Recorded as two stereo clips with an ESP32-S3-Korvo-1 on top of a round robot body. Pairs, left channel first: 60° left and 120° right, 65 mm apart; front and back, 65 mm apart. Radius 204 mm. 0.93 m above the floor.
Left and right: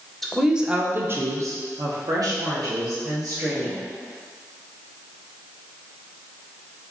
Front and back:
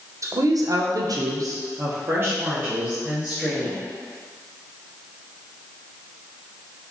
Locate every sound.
0.2 s a woman speaking: 145° left, 0.7 m; by 3.8 s 110° right, 1.6 m